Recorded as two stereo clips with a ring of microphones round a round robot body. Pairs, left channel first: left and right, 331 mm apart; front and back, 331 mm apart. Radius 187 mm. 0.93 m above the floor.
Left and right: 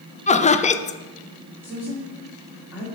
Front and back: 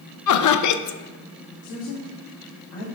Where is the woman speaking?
5° right, 2 m.